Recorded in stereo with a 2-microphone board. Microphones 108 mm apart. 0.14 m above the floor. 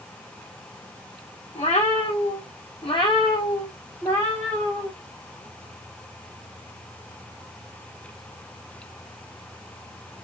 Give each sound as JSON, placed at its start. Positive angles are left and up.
{"t": 1.6, "sound": "a cat meowing", "side_deg": 80, "distance_m": 1.4}